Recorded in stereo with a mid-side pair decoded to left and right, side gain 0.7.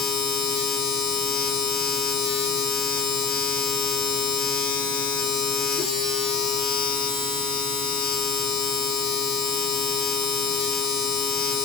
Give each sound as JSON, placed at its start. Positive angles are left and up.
{"t": 0.0, "sound": "a machine running", "azimuth_deg": 45, "distance_m": 2.5}